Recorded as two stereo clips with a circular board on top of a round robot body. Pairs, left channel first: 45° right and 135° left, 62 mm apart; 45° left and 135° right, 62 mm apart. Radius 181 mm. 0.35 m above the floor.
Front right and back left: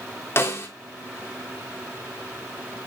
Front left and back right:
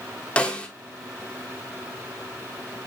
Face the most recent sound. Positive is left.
turn(degrees=-20)